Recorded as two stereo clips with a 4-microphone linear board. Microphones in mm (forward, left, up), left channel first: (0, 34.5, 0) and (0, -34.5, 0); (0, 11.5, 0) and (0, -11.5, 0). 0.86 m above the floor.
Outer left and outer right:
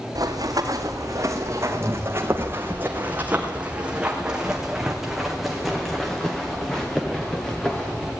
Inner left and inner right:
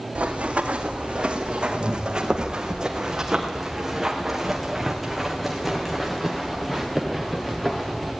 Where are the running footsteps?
60° right (ahead or behind), 3.5 m; by 8.1 s 15° left (ahead or behind), 6 m.